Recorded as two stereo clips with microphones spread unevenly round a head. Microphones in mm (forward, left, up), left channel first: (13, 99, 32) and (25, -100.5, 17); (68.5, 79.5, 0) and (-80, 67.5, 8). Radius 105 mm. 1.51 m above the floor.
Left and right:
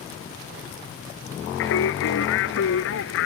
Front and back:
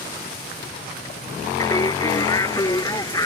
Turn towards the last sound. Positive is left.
turn(degrees=70)